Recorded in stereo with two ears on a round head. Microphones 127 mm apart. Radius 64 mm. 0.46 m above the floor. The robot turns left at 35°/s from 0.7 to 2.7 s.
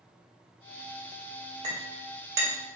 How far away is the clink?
About 0.8 m.